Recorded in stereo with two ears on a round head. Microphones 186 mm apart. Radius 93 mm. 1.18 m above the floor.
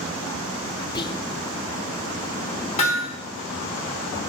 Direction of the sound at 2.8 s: 30° left (ahead or behind).